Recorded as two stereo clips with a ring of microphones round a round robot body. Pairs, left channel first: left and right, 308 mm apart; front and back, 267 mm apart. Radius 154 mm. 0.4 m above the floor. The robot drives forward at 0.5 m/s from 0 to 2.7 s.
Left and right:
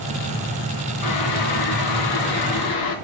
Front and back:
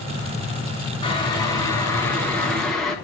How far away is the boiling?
About 3 m.